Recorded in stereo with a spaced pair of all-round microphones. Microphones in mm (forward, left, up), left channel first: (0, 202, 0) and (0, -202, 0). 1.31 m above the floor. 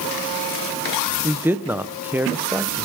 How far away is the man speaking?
About 0.7 m.